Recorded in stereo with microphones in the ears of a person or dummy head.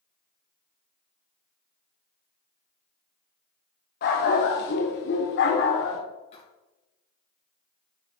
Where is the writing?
35° left (ahead or behind), 4.5 m.